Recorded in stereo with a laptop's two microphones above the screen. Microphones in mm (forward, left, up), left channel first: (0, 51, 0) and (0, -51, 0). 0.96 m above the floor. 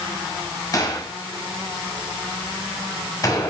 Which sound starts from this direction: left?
A gunshot, at 0.7 s.